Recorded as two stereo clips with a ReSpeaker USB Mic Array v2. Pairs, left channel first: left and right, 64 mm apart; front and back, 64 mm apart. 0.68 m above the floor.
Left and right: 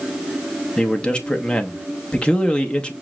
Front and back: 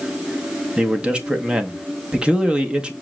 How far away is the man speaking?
About 0.6 m.